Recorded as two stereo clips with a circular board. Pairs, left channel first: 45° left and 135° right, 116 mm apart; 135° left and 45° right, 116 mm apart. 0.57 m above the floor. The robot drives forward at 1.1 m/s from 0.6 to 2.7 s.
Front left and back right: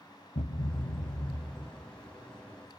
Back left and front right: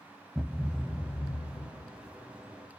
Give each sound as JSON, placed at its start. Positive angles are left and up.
{"t": 0.3, "sound": "a thud", "azimuth_deg": 45, "distance_m": 1.0}